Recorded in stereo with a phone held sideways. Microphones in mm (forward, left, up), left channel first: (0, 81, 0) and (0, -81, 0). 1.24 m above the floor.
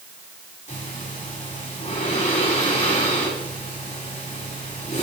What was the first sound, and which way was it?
Breathing, 45° left (ahead or behind).